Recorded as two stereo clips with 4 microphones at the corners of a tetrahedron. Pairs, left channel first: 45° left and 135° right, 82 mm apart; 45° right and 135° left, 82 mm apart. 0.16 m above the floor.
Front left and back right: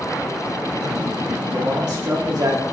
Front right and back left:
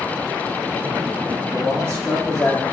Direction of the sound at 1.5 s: 115° right.